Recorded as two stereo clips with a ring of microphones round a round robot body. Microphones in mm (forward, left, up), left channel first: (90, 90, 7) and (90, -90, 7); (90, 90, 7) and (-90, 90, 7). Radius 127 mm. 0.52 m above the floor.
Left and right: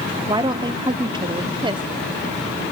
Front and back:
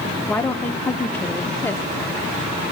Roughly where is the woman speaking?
Ahead right.